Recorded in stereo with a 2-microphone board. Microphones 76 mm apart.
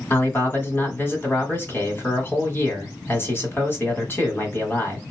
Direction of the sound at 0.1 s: 30° left (ahead or behind).